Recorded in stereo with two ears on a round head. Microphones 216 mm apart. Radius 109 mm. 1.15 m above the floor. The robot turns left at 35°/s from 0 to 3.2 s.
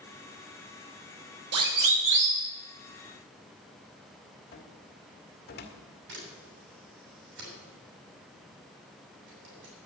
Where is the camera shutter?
50° right (ahead or behind), 8 m.